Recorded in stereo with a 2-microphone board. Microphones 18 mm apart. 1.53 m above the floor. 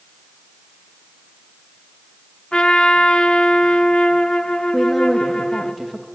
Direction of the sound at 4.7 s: 15° left (ahead or behind).